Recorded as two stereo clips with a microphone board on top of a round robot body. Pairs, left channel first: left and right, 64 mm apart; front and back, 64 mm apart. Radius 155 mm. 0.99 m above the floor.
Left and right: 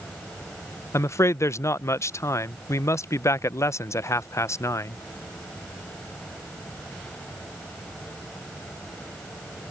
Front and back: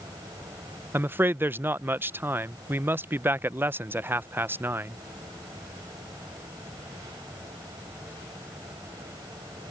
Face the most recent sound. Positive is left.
turn(degrees=125)